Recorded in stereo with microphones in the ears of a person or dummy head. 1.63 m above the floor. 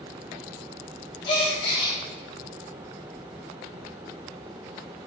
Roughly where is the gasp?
Left.